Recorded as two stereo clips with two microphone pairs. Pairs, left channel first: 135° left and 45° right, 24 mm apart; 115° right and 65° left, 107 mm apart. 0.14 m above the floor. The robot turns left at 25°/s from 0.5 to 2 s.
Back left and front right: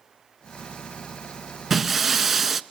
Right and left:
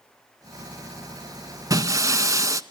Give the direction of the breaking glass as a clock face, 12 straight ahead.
11 o'clock.